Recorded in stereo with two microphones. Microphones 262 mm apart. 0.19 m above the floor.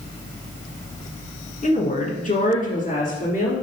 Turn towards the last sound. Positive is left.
turn(degrees=30)  # may be behind; listen again after turning